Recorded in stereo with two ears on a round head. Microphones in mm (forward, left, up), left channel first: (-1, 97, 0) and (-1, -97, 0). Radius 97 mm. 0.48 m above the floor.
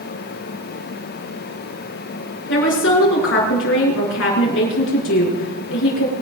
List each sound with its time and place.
2.5 s a woman speaking: 60° left (ahead or behind), 5.5 m